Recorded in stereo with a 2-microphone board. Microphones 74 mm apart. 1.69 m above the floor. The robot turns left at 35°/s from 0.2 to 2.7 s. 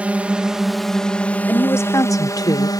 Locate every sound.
0.0 s a drone: 160° right; by 2.8 s 110° left
1.5 s a woman speaking: 150° left; by 2.7 s 110° left